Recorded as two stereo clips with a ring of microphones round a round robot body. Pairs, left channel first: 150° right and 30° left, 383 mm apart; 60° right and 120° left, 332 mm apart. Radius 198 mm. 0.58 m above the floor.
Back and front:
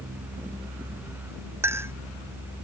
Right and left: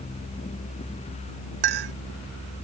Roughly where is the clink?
Behind left.